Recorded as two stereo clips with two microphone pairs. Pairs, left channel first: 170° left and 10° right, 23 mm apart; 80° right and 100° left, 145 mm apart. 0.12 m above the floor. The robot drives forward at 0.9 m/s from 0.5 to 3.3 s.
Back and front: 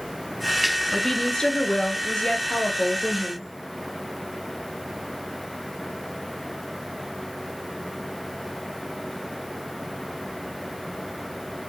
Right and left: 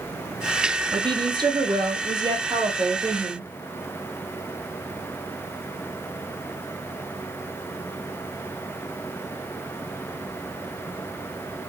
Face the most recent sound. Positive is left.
turn(degrees=165)